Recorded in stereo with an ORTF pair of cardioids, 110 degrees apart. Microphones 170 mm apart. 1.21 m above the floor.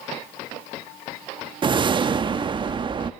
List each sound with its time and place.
1.6 s a whoosh: 30° right, 1.1 m